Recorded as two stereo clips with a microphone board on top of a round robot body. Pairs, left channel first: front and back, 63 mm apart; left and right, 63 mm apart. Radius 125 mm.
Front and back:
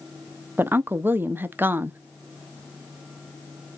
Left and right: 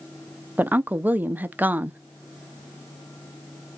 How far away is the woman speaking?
About 0.7 m.